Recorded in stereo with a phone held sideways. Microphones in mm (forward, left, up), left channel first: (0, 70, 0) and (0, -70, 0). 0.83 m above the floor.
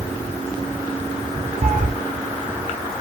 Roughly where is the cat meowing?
Right.